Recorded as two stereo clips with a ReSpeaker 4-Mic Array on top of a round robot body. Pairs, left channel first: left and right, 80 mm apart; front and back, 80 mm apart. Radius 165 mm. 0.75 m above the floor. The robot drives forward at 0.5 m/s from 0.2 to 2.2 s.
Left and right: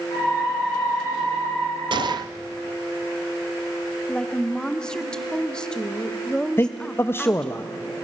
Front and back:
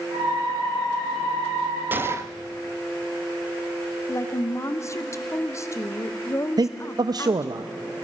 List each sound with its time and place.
1.9 s a gunshot: 110° right, 0.7 m; by 2.3 s 125° right, 0.7 m
4.1 s a woman speaking: 15° left, 1.1 m
6.6 s a man speaking: 150° left, 0.8 m